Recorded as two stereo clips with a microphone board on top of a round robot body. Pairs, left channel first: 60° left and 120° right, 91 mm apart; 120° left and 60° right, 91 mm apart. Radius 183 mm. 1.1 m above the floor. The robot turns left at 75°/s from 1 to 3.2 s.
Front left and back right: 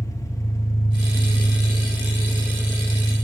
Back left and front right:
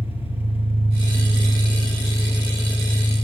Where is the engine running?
120° left, 5.5 m; by 3.2 s 45° right, 5.5 m.